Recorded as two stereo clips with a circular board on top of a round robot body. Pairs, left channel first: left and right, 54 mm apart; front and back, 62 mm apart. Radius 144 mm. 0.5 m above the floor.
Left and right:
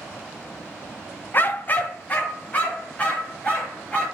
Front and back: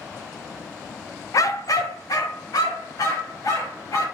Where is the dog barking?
40° left, 0.6 m; by 4.0 s 25° left, 4.5 m.